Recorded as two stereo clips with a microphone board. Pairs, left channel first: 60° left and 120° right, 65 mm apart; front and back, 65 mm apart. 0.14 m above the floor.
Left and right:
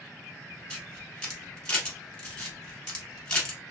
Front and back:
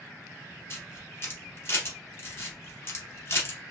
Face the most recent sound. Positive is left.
turn(degrees=-10)